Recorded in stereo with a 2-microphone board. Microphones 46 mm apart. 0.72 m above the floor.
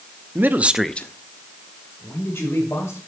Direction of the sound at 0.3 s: 45° right (ahead or behind).